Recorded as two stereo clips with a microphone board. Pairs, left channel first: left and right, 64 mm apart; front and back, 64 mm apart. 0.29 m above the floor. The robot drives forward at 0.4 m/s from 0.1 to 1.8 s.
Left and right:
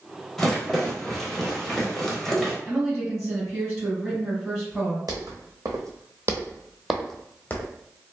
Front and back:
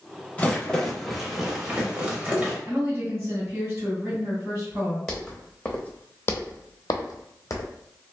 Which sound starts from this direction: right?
Footsteps, at 5.1 s.